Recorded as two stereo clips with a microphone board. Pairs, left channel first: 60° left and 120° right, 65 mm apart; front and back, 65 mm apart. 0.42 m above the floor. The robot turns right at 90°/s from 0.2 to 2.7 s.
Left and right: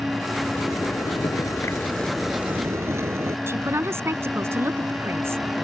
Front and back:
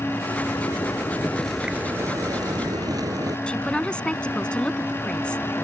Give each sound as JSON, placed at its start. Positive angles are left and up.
{"t": 0.5, "sound": "a zipper", "azimuth_deg": -5}
{"t": 3.5, "sound": "a man speaking", "azimuth_deg": -75}